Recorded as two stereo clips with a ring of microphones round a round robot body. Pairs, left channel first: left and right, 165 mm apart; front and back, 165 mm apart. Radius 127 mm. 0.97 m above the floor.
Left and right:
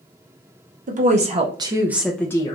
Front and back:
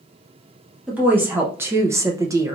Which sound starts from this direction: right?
A woman speaking, at 0.9 s.